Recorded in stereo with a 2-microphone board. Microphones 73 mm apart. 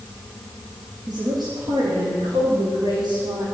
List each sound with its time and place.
1.1 s a woman speaking: 70° right (ahead or behind), 6.5 m; by 3.5 s 80° right, 7.5 m